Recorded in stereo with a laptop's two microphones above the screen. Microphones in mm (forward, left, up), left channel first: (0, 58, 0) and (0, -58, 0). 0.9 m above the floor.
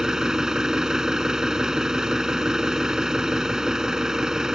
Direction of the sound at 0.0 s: 5° right (ahead or behind).